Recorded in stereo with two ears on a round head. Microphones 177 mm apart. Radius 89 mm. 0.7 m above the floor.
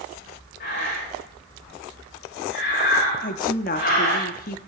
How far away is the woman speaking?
About 1.1 m.